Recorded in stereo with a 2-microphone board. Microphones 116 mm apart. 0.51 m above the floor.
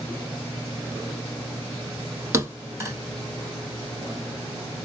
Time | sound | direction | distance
2.3 | a thud | 25° right (ahead or behind) | 1.1 m